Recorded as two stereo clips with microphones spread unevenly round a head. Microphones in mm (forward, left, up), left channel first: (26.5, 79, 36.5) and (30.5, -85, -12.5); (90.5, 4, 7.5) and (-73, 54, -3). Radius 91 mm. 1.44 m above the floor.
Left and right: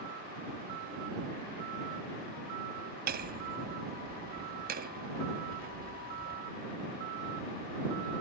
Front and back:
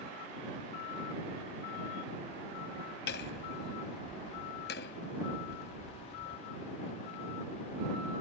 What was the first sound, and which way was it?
Hammering, 55° right.